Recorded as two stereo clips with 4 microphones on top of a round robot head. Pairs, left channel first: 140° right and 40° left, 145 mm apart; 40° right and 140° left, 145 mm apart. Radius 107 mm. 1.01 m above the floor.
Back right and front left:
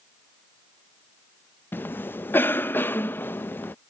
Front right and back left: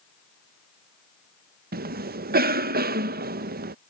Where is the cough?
140° left.